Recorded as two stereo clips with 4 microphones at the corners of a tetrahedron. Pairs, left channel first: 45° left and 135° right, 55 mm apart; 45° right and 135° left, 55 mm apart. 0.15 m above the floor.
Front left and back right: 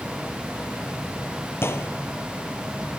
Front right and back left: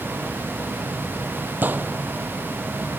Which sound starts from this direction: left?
A gunshot, at 1.6 s.